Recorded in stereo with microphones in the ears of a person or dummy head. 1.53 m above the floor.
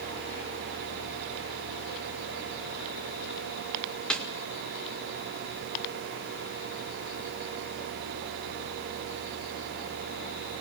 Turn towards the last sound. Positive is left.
turn(degrees=5)  # may be behind; listen again after turning